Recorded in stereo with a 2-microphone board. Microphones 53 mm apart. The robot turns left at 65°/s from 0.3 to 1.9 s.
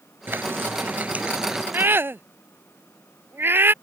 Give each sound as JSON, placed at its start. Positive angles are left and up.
{"t": 0.3, "sound": "frying", "azimuth_deg": -80}
{"t": 1.7, "sound": "a scream", "side_deg": -40}